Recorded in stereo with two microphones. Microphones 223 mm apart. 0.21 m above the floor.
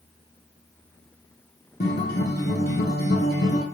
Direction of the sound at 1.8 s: 50° left (ahead or behind).